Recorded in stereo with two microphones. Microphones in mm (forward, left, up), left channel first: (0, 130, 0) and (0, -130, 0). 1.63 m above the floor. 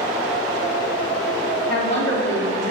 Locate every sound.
1.7 s a woman speaking: 80° left, 3 m